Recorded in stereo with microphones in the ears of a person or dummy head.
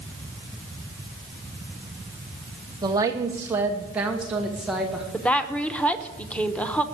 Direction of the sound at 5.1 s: 5° left (ahead or behind).